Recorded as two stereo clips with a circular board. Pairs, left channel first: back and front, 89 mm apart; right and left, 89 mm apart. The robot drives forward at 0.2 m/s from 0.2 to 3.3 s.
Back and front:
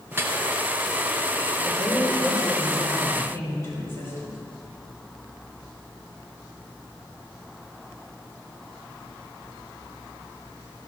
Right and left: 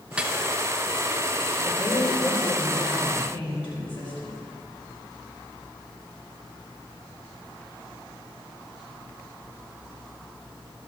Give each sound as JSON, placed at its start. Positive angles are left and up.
{"t": 0.1, "sound": "dripping", "azimuth_deg": 25, "distance_m": 0.7}
{"t": 1.6, "sound": "a woman speaking", "azimuth_deg": -115, "distance_m": 5.0}